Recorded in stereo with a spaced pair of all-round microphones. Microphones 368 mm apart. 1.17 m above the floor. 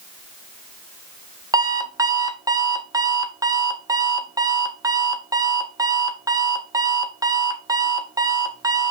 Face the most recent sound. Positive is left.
turn(degrees=-10)  # may be behind; listen again after turning